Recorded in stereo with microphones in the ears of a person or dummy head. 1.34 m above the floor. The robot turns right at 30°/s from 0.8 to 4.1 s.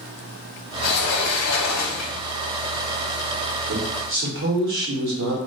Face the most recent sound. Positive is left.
turn(degrees=-60)  # may be behind; listen again after turning